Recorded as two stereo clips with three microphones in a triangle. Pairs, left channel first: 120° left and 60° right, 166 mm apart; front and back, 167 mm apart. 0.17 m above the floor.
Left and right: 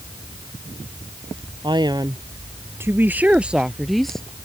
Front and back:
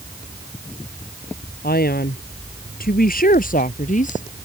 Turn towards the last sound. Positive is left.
turn(degrees=35)